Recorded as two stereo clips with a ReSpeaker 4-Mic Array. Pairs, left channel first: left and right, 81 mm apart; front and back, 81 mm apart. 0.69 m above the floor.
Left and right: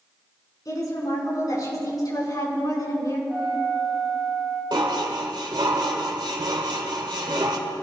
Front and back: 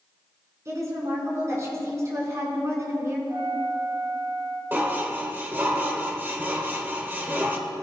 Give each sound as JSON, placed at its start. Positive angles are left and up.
{"t": 0.7, "sound": "a woman speaking", "azimuth_deg": 130, "distance_m": 6.0}
{"t": 3.3, "sound": "a flute", "azimuth_deg": 170, "distance_m": 6.0}
{"t": 4.7, "sound": "dishes clattering", "azimuth_deg": -115, "distance_m": 1.4}